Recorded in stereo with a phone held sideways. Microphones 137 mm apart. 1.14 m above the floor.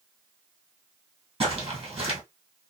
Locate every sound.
1.4 s footsteps: 45° right (ahead or behind), 1.8 m